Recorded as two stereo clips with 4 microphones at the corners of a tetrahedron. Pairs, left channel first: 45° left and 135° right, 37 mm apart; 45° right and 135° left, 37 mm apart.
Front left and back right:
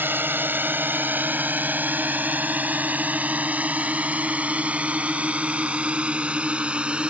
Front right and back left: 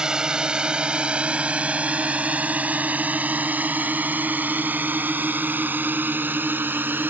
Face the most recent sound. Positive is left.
turn(degrees=165)